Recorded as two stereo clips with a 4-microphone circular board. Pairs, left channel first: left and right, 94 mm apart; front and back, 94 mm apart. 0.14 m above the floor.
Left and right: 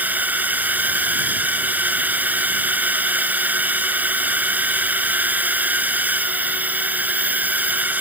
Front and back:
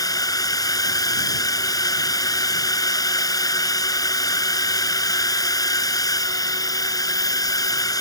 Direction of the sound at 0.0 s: 25° right.